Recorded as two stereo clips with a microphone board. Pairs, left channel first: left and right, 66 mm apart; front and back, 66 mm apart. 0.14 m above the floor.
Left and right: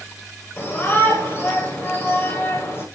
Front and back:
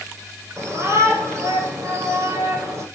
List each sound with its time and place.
0.6 s a shout: 140° left, 9.5 m